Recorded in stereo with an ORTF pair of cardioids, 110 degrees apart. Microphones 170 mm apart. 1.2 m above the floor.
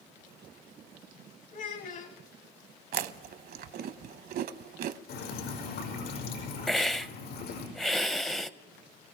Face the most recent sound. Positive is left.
turn(degrees=0)